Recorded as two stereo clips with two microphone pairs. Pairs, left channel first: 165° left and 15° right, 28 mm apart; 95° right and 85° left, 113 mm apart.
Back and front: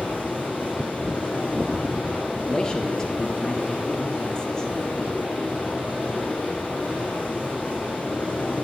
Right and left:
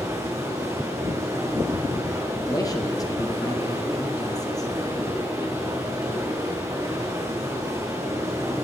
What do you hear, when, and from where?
0.0 s running water: 150° left, 5 m
2.5 s a man speaking: 140° right, 2.0 m